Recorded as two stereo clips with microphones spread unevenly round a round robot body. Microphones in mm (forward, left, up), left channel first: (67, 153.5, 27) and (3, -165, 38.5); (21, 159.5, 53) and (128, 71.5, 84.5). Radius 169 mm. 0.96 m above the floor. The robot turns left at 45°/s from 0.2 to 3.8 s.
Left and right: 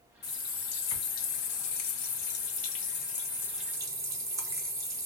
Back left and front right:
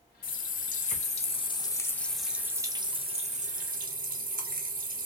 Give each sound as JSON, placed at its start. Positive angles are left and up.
{"t": 0.2, "sound": "a running tap", "azimuth_deg": 140, "distance_m": 0.9}